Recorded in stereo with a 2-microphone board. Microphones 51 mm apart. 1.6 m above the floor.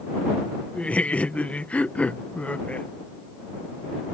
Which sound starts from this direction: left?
Laughter, at 0.8 s.